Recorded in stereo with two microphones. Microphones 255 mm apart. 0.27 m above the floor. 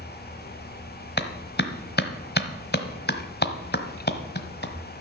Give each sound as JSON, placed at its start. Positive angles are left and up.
{"t": 1.2, "sound": "a clap", "side_deg": 45, "distance_m": 1.3}